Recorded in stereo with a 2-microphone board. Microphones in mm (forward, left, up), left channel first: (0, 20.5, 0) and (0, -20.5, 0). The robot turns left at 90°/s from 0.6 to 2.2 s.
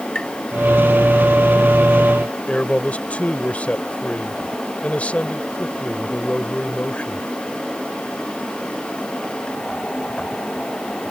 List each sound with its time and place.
0.1 s tapping: 20° left (ahead or behind)
2.5 s a man speaking: 35° left (ahead or behind)